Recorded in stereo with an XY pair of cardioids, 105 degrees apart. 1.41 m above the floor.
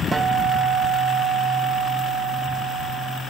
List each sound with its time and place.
0.1 s a guitar: 25° right, 0.6 m